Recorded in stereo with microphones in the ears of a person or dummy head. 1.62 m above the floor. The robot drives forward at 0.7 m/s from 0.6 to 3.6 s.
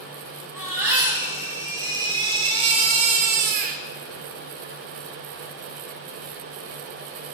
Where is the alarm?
No alarm in this recording.